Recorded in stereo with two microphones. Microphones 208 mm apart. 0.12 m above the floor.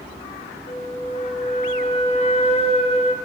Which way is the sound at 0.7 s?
35° left (ahead or behind).